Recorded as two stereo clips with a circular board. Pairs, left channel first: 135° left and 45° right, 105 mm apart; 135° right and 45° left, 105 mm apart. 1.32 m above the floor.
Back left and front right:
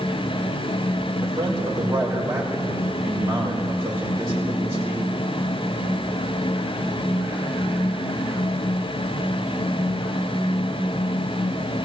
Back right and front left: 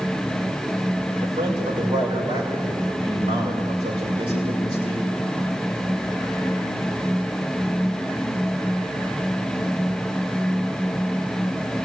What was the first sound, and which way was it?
A man speaking, 15° left.